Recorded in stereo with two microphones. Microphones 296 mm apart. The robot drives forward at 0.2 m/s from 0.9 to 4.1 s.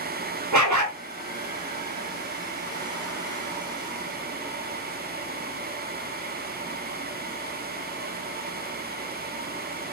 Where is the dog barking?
70° right (ahead or behind), 0.9 m.